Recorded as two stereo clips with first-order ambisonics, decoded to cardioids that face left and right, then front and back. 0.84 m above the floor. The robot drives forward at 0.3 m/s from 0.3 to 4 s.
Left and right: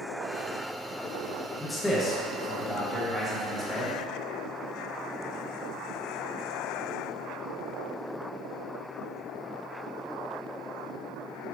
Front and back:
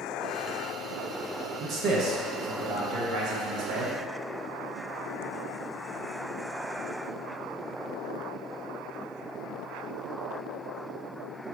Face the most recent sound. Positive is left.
turn(degrees=175)